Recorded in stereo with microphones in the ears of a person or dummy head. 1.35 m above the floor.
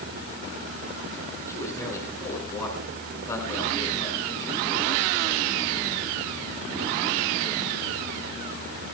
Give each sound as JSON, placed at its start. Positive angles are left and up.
{"t": 1.5, "sound": "a man speaking", "side_deg": 10, "distance_m": 7.0}